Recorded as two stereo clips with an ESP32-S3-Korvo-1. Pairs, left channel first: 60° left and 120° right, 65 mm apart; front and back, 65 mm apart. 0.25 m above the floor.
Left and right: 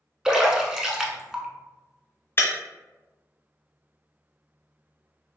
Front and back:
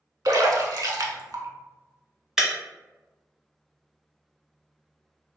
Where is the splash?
160° left, 0.6 m.